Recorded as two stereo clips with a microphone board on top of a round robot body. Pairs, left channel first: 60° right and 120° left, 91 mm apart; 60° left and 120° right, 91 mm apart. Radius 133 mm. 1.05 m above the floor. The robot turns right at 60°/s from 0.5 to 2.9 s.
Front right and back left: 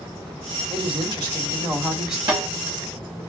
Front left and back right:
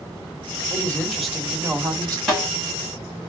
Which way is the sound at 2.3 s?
145° left.